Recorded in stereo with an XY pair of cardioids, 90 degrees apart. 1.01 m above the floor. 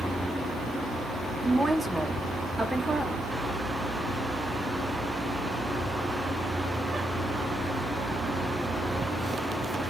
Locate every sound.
1.4 s a woman speaking: straight ahead, 0.5 m